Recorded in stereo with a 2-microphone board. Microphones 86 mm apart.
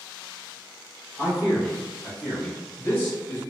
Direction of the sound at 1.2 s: 15° right (ahead or behind).